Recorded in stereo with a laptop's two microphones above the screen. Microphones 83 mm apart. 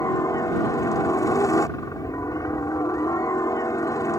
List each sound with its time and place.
0.0 s a helicopter: 45° left (ahead or behind)